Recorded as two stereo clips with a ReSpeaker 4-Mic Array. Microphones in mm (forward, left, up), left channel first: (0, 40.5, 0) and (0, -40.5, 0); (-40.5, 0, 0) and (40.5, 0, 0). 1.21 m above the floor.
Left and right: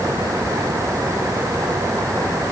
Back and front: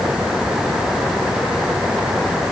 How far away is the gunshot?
No gunshot in this recording.